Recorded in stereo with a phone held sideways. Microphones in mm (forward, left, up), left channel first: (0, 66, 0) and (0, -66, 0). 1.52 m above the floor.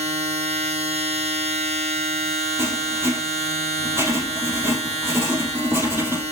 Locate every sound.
0.0 s a machine running: 55° right (ahead or behind), 1.4 m
2.6 s writing: 25° right (ahead or behind), 3 m